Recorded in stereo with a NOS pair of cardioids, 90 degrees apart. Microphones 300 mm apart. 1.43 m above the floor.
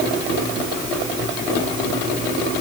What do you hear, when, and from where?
Only background noise.